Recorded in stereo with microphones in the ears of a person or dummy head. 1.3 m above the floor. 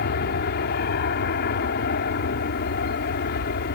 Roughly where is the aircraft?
Left.